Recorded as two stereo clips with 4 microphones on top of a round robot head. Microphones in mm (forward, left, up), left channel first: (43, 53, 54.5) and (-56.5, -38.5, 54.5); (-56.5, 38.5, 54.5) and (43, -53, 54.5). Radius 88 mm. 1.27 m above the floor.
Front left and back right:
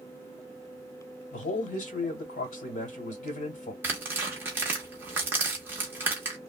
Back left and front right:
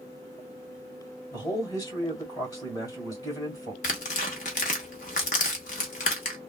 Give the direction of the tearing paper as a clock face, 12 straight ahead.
7 o'clock.